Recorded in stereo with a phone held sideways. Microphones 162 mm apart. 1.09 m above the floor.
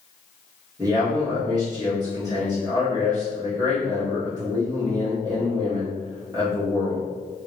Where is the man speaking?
25° right (ahead or behind), 1.9 m.